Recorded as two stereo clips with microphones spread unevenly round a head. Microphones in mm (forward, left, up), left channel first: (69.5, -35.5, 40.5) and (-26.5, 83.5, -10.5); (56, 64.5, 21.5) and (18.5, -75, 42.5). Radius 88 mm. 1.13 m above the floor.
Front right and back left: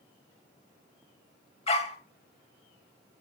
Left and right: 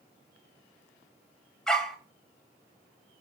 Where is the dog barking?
15° right, 2 m.